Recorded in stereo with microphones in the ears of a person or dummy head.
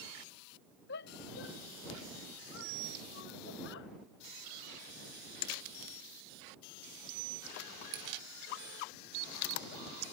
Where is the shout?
60° left (ahead or behind); by 3.9 s 70° left (ahead or behind).